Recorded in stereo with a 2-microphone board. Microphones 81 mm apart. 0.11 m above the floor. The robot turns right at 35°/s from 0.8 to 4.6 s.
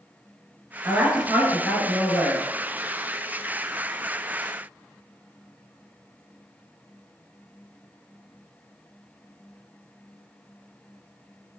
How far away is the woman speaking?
About 1.3 m.